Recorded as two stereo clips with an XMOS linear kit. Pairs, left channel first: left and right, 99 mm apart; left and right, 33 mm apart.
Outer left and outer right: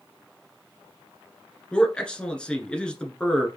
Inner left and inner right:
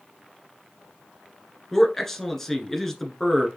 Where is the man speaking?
10° left (ahead or behind), 1.2 m.